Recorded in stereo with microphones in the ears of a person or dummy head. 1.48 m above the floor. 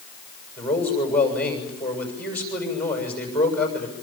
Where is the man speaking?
5° left (ahead or behind), 7 m.